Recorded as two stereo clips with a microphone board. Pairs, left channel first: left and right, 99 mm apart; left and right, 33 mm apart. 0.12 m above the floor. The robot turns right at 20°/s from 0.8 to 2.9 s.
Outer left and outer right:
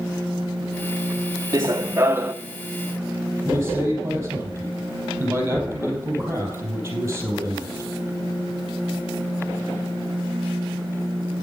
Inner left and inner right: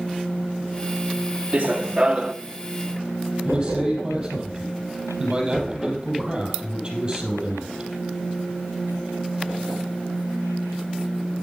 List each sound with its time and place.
1.5 s running footsteps: 40° right (ahead or behind), 0.7 m; by 2.3 s 20° right (ahead or behind), 0.7 m
3.5 s a man speaking: 25° right (ahead or behind), 4 m